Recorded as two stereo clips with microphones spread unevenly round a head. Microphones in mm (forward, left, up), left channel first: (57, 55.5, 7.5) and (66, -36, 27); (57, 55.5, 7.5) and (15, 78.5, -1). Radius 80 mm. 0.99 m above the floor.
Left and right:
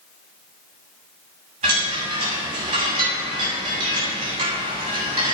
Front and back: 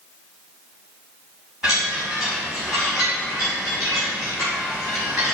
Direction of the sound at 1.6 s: 125° right.